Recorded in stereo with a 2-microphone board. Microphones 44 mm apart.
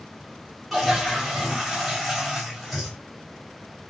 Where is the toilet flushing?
Centre (ahead or behind), 1.4 m.